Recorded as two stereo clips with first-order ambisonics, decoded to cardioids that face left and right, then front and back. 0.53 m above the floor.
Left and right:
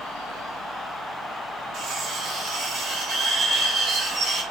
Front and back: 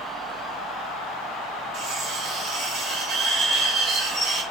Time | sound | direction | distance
1.7 | cutlery clinking | 135° right | 1.6 m